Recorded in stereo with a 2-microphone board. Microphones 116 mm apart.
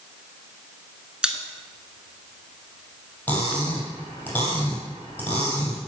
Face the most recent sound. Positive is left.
turn(degrees=15)  # may be behind; listen again after turning